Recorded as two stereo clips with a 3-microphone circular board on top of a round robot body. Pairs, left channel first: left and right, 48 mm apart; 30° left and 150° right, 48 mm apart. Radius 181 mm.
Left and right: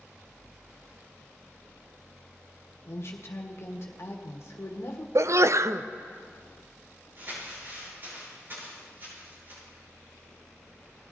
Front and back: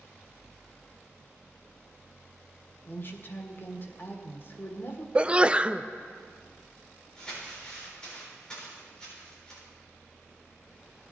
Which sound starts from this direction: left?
A woman speaking, at 2.9 s.